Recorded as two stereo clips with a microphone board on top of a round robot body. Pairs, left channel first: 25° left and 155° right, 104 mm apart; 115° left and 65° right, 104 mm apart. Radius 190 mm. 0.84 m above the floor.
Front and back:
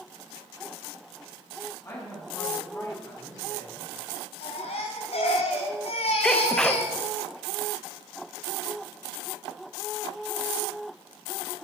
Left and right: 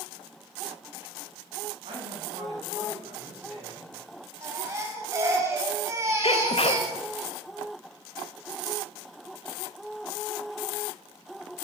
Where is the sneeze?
105° left, 1.2 m.